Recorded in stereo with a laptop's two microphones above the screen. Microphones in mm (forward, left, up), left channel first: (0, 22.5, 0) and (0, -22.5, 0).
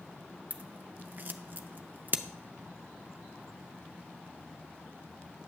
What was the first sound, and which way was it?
Scissors, 45° right (ahead or behind).